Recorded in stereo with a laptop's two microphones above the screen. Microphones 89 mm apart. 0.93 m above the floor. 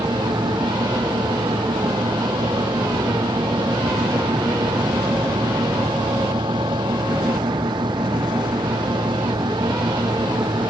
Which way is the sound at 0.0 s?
60° right (ahead or behind).